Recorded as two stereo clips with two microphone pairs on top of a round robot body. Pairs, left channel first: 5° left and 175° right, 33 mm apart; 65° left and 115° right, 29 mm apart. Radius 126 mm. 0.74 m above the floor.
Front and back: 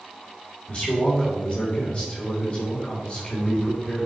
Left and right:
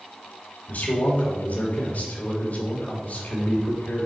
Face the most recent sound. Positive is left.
turn(degrees=55)